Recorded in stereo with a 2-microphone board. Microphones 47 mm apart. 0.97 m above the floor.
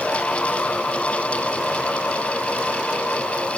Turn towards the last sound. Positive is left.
No sound to turn to.